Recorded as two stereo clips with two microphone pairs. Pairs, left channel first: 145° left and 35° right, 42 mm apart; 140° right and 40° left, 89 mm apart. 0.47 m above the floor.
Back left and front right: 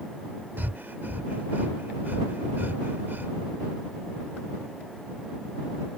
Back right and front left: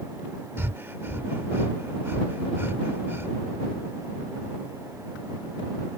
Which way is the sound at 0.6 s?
20° right.